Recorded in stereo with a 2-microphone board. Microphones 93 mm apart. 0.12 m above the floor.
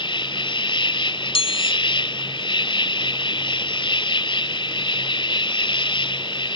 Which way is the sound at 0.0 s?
60° left (ahead or behind).